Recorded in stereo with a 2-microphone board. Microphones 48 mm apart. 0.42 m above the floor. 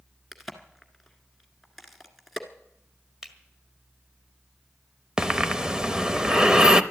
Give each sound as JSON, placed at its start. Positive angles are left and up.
{"t": 0.3, "sound": "a crack", "side_deg": -5, "distance_m": 1.4}
{"t": 3.2, "sound": "a finger snap", "side_deg": -10, "distance_m": 1.7}
{"t": 5.2, "sound": "breathing", "side_deg": -15, "distance_m": 0.7}